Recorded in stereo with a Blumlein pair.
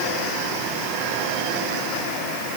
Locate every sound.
Only background noise.